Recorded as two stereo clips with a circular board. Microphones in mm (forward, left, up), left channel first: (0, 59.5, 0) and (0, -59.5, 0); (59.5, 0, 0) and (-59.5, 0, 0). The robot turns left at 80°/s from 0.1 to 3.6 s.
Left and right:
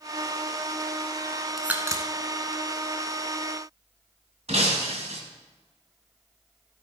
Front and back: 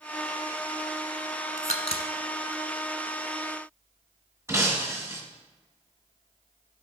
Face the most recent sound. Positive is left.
turn(degrees=-115)